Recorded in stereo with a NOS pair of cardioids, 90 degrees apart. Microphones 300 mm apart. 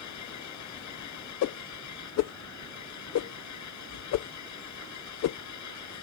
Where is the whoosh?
60° left.